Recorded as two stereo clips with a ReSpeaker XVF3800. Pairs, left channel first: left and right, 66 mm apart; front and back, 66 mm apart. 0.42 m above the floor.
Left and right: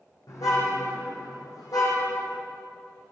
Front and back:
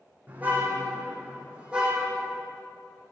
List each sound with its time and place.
0.3 s a car horn: 115° left, 8 m; by 2.4 s 100° left, 6.5 m